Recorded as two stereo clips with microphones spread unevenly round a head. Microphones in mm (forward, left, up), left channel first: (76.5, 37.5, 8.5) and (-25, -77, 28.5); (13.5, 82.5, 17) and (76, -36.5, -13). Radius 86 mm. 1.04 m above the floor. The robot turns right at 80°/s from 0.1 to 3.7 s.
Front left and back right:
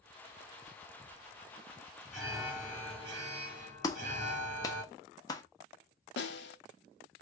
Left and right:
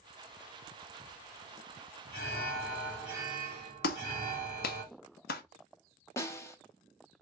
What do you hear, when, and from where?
2.1 s an alarm: 140° left, 1.9 m; by 4.8 s 95° right, 1.9 m
3.8 s a clap: 120° left, 0.7 m
6.2 s a snare drum: 50° left, 1.0 m